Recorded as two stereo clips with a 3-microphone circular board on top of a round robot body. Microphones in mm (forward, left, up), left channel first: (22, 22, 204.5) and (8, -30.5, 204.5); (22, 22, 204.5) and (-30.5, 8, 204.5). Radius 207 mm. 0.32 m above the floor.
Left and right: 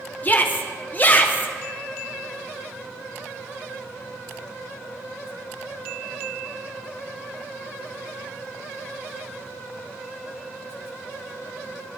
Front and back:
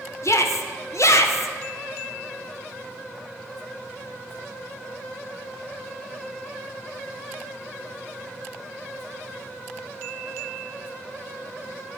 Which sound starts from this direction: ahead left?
A shout, at 0.2 s.